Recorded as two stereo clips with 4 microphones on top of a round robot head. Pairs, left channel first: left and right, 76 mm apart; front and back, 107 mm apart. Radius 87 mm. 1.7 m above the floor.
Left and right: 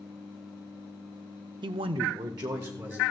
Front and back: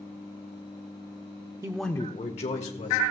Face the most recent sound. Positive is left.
turn(degrees=-25)